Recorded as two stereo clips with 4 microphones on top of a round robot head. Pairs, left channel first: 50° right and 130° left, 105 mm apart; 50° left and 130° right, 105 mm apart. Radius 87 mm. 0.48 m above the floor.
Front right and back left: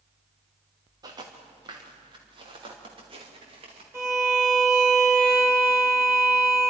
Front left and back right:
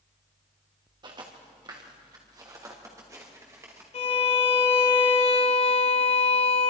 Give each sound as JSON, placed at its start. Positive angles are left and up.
{"t": 1.0, "sound": "footsteps", "azimuth_deg": -175, "distance_m": 4.0}
{"t": 3.9, "sound": "a violin", "azimuth_deg": 60, "distance_m": 3.0}